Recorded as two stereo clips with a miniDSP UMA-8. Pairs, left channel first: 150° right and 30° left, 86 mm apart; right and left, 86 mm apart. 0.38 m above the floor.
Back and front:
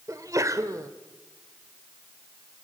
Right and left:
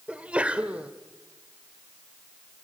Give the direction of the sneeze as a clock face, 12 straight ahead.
11 o'clock.